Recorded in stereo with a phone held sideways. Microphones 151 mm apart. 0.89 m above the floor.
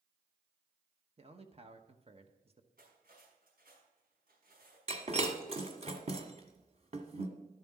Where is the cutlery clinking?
80° right, 5 m.